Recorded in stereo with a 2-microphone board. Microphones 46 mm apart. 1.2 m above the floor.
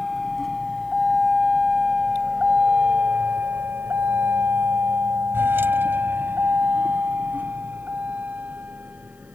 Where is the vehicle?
Centre (ahead or behind); by 9.4 s 35° right (ahead or behind).